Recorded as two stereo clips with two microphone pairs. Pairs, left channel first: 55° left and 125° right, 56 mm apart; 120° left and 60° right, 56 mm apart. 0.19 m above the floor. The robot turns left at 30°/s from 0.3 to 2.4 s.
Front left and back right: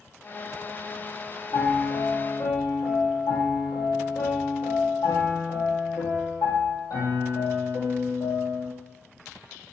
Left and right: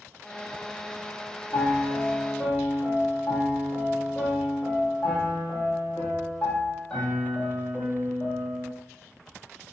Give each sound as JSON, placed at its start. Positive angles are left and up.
{"t": 1.5, "sound": "a piano", "azimuth_deg": 70, "distance_m": 1.0}